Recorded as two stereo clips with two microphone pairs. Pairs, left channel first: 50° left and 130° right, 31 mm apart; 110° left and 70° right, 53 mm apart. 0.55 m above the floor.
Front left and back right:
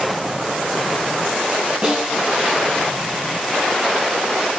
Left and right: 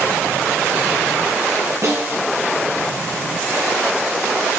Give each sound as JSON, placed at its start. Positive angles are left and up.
{"t": 1.8, "sound": "a snare drum", "azimuth_deg": -70, "distance_m": 1.9}